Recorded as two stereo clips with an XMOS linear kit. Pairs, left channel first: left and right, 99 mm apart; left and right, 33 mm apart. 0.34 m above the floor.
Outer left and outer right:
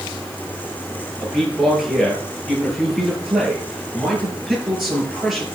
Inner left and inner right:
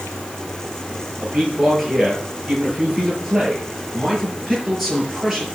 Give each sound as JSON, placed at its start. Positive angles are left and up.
{"t": 1.2, "sound": "a man speaking", "side_deg": -5, "distance_m": 6.0}